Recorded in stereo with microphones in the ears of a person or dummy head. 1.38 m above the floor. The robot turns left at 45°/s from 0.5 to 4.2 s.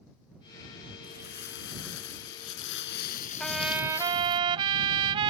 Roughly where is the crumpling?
Behind left.